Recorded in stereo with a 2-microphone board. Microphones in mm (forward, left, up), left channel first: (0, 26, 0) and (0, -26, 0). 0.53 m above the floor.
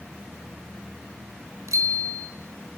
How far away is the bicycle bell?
About 3 m.